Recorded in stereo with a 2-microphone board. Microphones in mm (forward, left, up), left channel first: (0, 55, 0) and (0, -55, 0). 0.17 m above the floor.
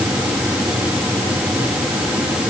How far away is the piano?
No piano in this recording.